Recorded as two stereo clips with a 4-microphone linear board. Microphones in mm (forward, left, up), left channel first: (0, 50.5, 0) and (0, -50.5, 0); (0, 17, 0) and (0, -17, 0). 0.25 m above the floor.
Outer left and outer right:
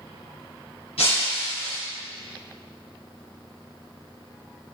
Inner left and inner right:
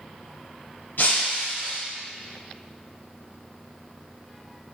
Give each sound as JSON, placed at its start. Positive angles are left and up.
{"t": 1.0, "sound": "breaking glass", "side_deg": 75, "distance_m": 3.5}